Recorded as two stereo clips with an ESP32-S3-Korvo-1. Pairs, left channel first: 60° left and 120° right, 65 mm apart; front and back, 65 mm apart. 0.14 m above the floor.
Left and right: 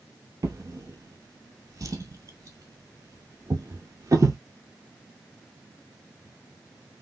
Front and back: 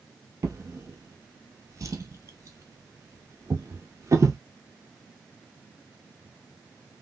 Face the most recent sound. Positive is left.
turn(degrees=-145)